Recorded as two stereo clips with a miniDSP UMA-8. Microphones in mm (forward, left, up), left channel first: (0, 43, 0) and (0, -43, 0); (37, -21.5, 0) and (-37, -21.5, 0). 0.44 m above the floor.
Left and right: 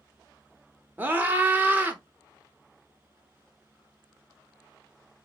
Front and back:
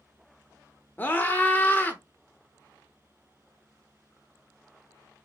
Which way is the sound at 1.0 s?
40° right.